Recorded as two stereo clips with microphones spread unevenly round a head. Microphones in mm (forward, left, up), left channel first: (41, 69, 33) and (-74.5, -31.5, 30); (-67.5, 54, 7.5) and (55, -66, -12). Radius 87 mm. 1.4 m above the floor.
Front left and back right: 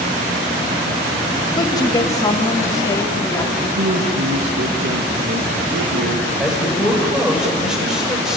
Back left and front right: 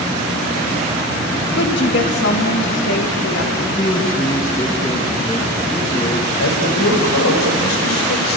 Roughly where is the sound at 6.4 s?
Behind left.